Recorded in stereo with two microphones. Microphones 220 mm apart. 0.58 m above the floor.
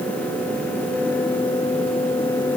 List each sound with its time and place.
Only background noise.